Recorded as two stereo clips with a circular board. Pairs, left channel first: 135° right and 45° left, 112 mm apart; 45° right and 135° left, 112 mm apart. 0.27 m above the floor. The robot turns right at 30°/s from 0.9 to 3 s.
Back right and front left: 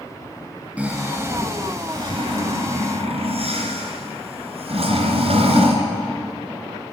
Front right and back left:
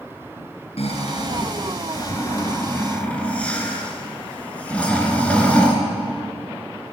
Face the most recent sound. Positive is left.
turn(degrees=30)